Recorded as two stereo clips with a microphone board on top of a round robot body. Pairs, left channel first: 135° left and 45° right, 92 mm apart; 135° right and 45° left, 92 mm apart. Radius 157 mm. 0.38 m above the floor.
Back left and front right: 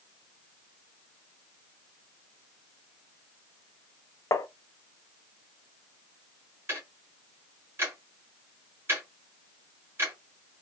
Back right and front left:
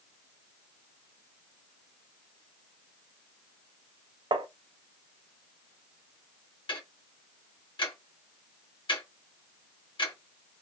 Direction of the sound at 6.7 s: 110° right.